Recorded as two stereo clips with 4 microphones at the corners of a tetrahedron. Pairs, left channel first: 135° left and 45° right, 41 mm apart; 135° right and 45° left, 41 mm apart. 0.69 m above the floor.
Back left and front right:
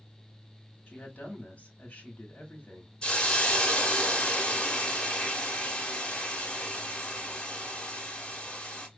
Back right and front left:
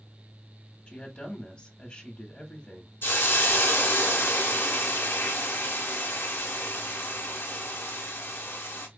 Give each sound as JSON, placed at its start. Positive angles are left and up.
{"t": 0.9, "sound": "a woman speaking", "azimuth_deg": 180, "distance_m": 1.3}
{"t": 3.0, "sound": "a hiss", "azimuth_deg": -155, "distance_m": 1.1}